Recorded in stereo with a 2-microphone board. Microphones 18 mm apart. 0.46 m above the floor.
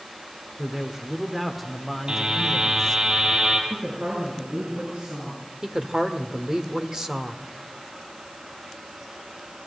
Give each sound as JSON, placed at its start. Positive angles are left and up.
{"t": 0.6, "sound": "a man speaking", "side_deg": -25, "distance_m": 1.6}
{"t": 2.1, "sound": "a buzzer", "side_deg": -60, "distance_m": 4.5}
{"t": 3.7, "sound": "a woman speaking", "side_deg": -80, "distance_m": 7.0}
{"t": 5.6, "sound": "a woman speaking", "side_deg": -35, "distance_m": 1.6}